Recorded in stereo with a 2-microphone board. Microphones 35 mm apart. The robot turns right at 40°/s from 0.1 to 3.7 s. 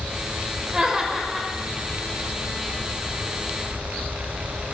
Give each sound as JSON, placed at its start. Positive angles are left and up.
{"t": 0.7, "sound": "laughter", "azimuth_deg": -45, "distance_m": 1.1}